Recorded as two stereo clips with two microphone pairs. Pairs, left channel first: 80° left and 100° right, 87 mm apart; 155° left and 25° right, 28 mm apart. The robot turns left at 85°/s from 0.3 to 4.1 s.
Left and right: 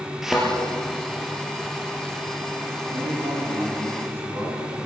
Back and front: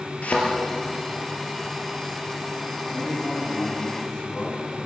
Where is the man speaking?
55° right, 7.5 m; by 4.8 s 160° right, 7.5 m.